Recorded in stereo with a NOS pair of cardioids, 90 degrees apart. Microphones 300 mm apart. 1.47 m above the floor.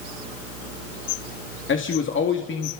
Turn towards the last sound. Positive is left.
turn(degrees=40)